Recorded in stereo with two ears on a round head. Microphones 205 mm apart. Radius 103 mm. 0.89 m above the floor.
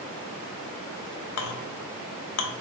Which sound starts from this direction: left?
A clink, at 1.4 s.